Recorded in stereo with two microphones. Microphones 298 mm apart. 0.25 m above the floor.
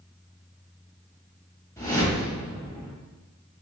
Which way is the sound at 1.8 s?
10° left (ahead or behind).